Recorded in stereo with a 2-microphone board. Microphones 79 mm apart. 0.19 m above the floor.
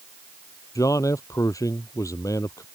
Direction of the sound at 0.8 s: 45° left (ahead or behind).